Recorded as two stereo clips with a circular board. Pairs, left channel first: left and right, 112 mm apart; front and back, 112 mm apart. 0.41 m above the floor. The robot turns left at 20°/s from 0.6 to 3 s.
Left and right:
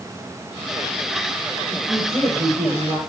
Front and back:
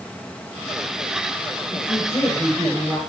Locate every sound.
1.7 s a woman speaking: 75° right, 6 m; by 3.0 s 100° right, 6 m